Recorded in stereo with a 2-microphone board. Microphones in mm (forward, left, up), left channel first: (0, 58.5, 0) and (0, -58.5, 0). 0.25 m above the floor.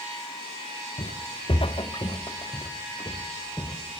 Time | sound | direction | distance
1.0 | footsteps | 65° left (ahead or behind) | 1.1 m